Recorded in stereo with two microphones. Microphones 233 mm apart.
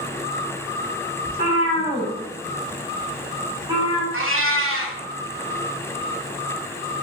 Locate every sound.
1.2 s a cat meowing: 40° left (ahead or behind), 1.2 m; by 4.0 s 20° right (ahead or behind), 1.3 m
4.1 s a cat meowing: 60° right (ahead or behind), 0.5 m